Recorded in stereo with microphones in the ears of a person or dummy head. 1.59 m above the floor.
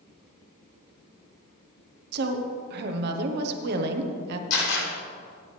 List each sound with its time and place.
2.1 s a woman speaking: 60° right (ahead or behind), 1.1 m
4.5 s a camera shutter: 80° left, 5 m